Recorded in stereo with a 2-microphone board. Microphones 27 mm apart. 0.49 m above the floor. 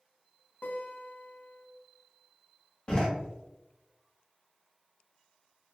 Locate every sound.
0.6 s a guitar: 80° left, 0.8 m
2.9 s a door slam: 30° left (ahead or behind), 0.9 m